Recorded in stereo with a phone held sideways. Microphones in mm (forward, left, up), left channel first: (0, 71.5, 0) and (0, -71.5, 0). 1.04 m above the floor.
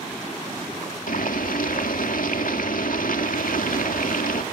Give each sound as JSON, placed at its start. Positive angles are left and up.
{"t": 1.1, "sound": "boiling", "side_deg": 75, "distance_m": 2.0}